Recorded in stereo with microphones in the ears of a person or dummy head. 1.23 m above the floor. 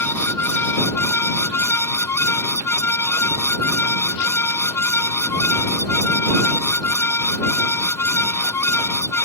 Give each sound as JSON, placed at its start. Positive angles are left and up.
{"t": 0.0, "sound": "a fan", "side_deg": 15}